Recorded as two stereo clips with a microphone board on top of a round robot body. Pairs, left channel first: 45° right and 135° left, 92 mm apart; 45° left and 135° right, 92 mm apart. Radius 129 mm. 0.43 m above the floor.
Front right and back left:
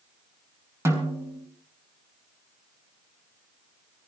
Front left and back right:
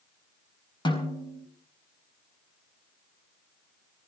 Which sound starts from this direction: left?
A snare drum, at 0.8 s.